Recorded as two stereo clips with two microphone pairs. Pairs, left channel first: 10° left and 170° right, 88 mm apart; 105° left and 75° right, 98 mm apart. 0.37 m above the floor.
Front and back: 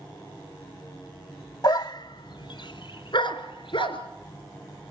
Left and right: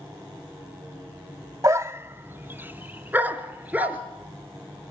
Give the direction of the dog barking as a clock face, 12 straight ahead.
1 o'clock.